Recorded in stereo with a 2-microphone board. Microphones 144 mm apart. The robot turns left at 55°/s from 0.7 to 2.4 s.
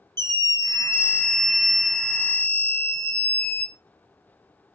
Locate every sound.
0.2 s a scream: 30° right, 2.5 m; by 3.7 s 125° right, 2.5 m